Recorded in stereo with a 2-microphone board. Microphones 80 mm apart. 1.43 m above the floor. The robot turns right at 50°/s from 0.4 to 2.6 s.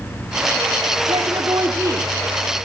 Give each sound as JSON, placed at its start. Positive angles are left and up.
{"t": 1.1, "sound": "a woman speaking", "azimuth_deg": -80, "distance_m": 3.5}